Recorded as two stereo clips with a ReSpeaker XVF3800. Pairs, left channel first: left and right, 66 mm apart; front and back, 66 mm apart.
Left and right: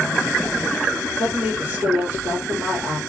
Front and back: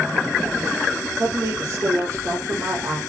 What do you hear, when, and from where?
1.2 s a woman speaking: 145° right, 4 m